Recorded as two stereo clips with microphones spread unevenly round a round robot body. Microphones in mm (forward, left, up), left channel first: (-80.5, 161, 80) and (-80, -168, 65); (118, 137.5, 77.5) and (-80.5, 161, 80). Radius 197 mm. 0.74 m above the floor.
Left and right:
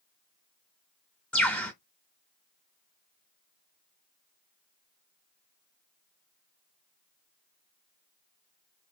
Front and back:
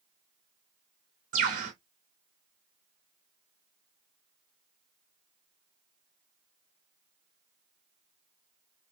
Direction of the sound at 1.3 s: 170° left.